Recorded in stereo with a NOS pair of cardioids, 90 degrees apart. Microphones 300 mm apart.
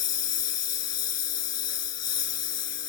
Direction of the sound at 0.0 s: 65° left.